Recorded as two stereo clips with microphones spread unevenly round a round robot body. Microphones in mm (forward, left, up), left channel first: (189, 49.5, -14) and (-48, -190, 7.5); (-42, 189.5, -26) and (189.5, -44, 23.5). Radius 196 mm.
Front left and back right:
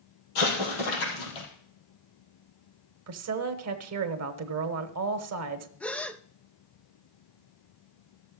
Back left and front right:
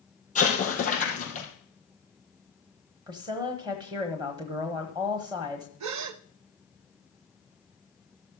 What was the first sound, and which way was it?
An explosion, 65° left.